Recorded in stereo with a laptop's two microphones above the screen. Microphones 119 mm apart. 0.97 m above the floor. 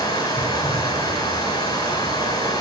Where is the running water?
35° left (ahead or behind), 7.5 m.